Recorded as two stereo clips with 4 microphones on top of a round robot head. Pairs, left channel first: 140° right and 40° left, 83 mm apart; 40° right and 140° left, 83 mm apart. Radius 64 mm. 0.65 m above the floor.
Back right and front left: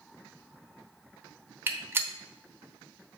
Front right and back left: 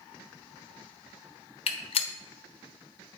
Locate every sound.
1.7 s a gunshot: 30° right, 0.9 m